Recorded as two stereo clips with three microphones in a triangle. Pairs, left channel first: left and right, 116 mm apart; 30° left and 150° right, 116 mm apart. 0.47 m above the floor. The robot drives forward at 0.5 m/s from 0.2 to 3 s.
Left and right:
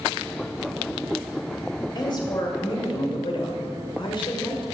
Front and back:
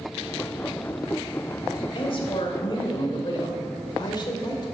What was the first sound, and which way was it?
A woman speaking, 50° left.